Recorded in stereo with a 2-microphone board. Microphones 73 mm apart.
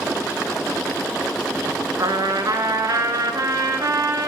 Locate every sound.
2.0 s a trumpet: 65° right (ahead or behind), 0.5 m